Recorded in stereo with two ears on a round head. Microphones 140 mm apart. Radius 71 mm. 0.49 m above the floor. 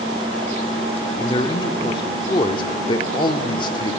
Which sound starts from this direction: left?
A man speaking, at 1.2 s.